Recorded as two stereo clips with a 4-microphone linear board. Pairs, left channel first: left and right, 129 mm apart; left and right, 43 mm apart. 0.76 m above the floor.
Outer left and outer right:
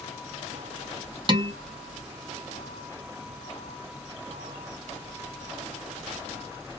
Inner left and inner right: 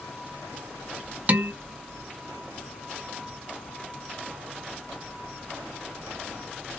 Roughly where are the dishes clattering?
Right.